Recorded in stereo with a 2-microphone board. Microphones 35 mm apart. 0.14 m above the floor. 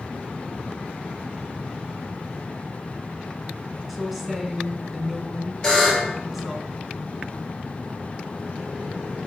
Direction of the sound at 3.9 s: 5° right (ahead or behind).